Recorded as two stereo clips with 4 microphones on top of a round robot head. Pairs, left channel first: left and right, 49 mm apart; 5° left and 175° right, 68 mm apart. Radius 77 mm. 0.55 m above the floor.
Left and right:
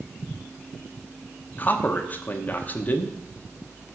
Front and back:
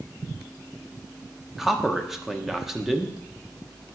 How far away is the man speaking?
About 1.0 m.